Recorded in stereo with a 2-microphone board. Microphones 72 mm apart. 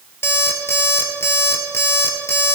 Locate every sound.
0.2 s an alarm clock: 35° left (ahead or behind), 1.8 m